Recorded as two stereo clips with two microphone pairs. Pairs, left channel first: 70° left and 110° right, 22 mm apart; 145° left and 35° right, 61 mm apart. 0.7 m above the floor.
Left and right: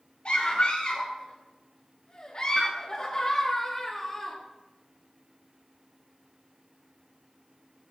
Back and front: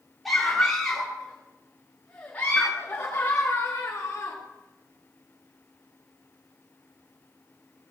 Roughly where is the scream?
Ahead left.